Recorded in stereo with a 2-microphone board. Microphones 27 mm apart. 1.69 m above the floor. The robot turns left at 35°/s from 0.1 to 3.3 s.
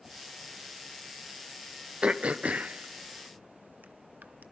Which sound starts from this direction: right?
Throat clearing, at 2.0 s.